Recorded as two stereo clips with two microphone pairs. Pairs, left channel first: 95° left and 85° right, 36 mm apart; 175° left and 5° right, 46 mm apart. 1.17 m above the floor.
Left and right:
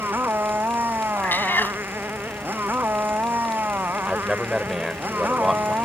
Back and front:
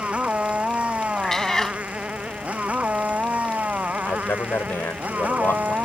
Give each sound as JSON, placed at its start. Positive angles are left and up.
{"t": 0.0, "sound": "a motorcycle", "azimuth_deg": -65}
{"t": 1.2, "sound": "a cat meowing", "azimuth_deg": 95}
{"t": 4.0, "sound": "a man speaking", "azimuth_deg": -170}